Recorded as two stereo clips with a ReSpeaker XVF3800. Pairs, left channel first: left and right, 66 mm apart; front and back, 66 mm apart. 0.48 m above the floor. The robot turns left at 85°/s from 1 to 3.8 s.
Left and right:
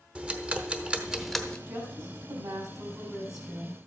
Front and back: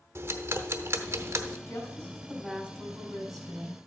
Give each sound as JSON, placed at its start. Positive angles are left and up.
{"t": 0.1, "sound": "ticking", "azimuth_deg": -155, "distance_m": 1.0}
{"t": 1.7, "sound": "a woman speaking", "azimuth_deg": -35, "distance_m": 4.0}